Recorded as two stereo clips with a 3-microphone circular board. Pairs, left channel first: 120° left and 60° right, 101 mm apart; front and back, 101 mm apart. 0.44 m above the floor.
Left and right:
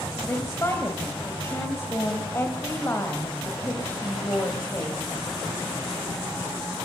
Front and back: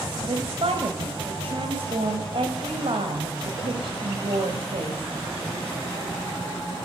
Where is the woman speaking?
Straight behind, 2.5 m.